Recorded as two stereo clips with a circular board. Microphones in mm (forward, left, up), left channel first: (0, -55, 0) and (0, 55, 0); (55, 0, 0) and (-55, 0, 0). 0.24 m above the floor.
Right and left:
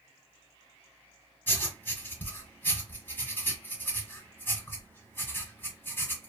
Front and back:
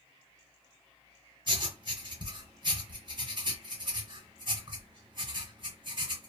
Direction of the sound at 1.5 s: 155° right.